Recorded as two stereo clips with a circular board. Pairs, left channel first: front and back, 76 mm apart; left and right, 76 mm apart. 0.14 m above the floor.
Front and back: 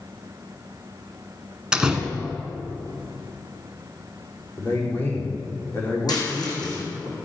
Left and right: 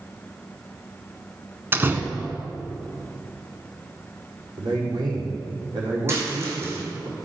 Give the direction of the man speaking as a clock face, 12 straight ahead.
2 o'clock.